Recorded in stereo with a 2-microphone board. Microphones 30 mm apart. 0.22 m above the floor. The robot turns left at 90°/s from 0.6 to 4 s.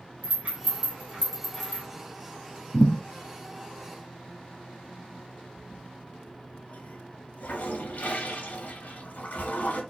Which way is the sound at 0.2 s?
55° right (ahead or behind).